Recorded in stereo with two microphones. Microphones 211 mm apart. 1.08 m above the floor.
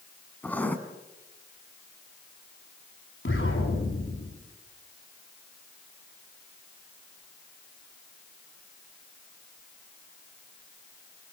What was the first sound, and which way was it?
Writing, 10° left (ahead or behind).